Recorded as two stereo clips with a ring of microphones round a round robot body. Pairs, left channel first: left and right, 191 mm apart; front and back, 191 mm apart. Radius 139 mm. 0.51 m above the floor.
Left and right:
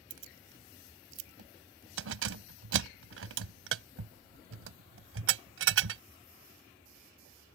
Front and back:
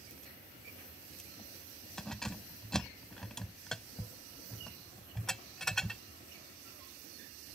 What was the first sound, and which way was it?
Keys jangling, 90° right.